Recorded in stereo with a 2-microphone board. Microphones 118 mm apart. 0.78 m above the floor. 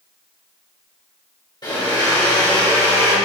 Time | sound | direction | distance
1.6 | a blender | 40° left (ahead or behind) | 3 m